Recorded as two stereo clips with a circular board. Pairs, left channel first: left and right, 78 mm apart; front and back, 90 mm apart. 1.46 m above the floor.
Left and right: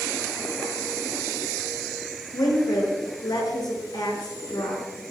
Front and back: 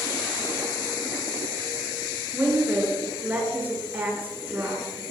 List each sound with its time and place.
2.3 s a woman speaking: 110° left, 7 m